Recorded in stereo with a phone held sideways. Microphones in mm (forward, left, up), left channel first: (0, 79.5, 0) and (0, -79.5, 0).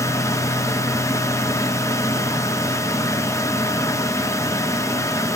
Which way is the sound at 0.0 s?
20° left (ahead or behind).